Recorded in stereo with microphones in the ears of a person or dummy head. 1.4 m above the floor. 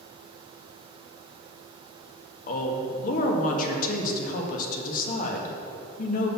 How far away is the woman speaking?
About 1.7 m.